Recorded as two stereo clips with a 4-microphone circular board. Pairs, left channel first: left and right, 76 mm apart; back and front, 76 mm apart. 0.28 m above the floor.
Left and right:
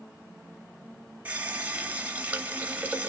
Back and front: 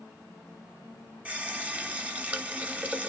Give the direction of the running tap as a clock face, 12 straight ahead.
2 o'clock.